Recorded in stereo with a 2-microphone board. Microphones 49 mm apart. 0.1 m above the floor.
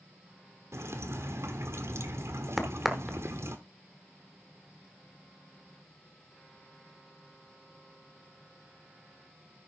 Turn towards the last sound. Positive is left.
turn(degrees=0)  # may be behind; listen again after turning